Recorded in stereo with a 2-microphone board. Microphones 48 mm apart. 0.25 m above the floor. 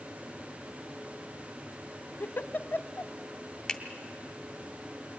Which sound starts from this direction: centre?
A finger snap, at 3.7 s.